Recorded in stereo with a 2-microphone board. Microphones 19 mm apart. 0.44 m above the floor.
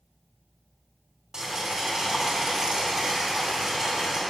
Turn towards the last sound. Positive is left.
turn(degrees=-30)  # may be behind; listen again after turning